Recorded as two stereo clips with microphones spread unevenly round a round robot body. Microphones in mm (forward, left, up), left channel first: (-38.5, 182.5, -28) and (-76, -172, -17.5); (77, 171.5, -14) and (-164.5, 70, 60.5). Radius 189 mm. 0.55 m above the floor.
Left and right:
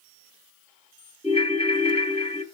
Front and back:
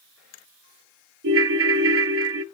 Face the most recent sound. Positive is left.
turn(degrees=155)